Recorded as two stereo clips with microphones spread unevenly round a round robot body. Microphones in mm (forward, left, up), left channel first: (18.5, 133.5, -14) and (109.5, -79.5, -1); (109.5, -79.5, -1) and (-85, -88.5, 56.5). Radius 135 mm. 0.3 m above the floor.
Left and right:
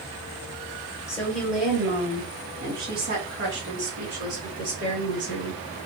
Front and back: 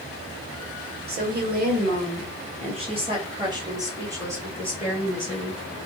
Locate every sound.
1.1 s a woman speaking: 175° left, 1.3 m; by 5.6 s 85° right, 2.5 m